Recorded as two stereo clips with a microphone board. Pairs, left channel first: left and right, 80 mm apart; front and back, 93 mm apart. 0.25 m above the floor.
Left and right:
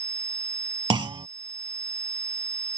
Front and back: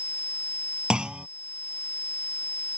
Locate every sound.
0.9 s a clunk: 100° right